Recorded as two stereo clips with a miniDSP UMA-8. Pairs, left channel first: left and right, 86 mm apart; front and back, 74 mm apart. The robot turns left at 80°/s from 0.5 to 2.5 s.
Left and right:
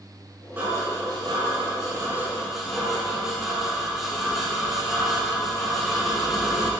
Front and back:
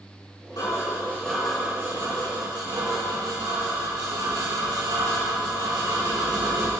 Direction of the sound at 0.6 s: 25° right.